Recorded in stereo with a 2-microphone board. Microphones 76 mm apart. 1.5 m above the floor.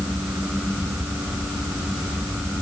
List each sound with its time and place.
Only background noise.